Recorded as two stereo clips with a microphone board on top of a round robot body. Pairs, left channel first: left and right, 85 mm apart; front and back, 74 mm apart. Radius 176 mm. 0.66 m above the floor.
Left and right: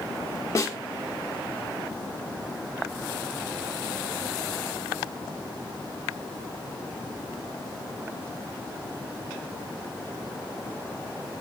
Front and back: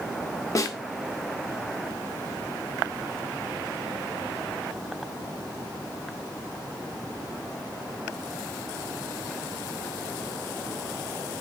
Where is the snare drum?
40° left, 1.0 m.